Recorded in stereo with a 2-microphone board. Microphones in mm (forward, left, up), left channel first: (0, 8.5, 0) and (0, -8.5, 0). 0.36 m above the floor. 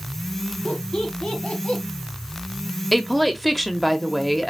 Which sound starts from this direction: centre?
A woman speaking, at 2.9 s.